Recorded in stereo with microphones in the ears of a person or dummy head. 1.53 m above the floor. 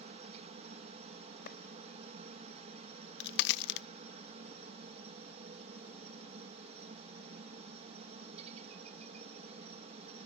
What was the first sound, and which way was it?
A helicopter, 40° right (ahead or behind).